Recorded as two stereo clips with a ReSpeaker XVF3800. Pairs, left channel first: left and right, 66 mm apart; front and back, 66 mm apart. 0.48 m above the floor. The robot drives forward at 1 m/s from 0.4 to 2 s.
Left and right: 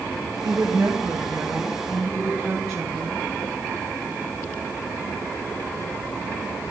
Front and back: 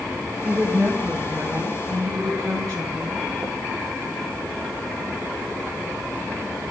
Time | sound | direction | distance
0.4 | a woman speaking | 100° right | 1.9 m